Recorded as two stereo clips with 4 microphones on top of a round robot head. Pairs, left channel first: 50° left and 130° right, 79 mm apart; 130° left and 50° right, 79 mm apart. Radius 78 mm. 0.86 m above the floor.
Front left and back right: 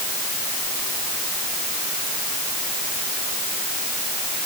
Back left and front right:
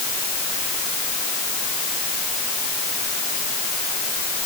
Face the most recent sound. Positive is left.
No sound to turn to.